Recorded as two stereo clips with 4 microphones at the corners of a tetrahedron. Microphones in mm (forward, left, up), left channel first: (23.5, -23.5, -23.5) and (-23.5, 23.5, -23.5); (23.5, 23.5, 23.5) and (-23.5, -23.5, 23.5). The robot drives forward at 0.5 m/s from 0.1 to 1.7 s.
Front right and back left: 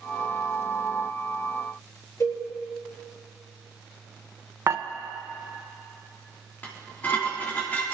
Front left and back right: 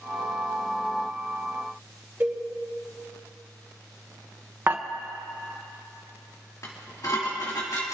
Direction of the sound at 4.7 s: 170° left.